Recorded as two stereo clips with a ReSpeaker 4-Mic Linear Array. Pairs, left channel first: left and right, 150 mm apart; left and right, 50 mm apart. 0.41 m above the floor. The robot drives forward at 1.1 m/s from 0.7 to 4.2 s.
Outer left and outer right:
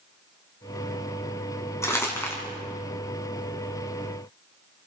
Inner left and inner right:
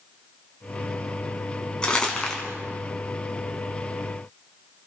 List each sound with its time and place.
1.8 s crumpling: 20° left (ahead or behind), 4 m; by 2.4 s 15° left (ahead or behind), 4.5 m